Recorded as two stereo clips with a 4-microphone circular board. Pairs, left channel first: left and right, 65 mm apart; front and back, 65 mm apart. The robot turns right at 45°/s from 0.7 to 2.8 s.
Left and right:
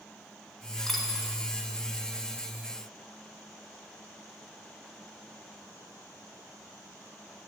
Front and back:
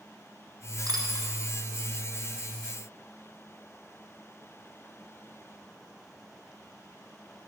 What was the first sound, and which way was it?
A dropped coin, 175° left.